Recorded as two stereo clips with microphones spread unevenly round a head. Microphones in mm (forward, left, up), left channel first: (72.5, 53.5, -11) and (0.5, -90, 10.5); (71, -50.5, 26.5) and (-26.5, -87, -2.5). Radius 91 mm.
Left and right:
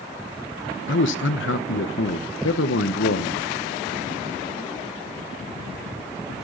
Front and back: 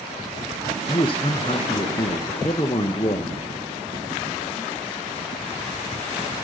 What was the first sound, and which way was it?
A man speaking, 85° left.